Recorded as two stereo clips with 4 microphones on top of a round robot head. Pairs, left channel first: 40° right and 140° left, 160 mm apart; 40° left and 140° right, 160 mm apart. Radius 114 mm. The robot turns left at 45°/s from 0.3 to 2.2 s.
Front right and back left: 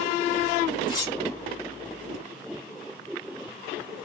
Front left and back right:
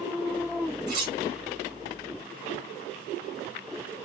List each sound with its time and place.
0.9 s cutlery clinking: 105° right, 0.8 m; by 1.1 s 120° right, 0.8 m